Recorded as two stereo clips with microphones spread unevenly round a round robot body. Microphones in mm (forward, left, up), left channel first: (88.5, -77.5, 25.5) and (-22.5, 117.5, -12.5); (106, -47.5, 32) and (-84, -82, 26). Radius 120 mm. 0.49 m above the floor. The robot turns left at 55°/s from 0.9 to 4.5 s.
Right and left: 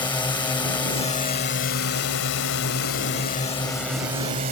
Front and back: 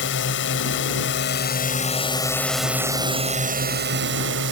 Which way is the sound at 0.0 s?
15° left.